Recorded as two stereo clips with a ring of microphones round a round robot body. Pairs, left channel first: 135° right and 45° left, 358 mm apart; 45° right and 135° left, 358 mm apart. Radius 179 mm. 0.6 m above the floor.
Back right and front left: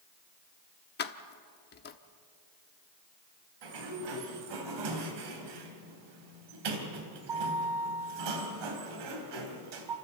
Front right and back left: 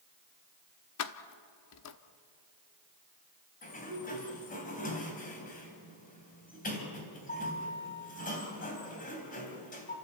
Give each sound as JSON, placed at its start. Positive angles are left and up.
{"t": 1.0, "sound": "keys jangling", "azimuth_deg": -80, "distance_m": 1.0}
{"t": 3.6, "sound": "a sliding door", "azimuth_deg": 25, "distance_m": 3.5}